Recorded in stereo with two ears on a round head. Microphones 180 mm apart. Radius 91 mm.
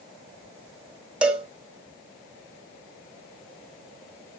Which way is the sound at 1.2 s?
5° right (ahead or behind).